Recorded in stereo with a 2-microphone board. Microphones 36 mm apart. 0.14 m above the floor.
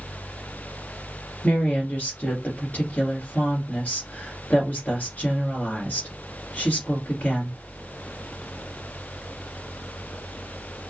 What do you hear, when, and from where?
1.4 s a woman speaking: 40° left (ahead or behind), 1.7 m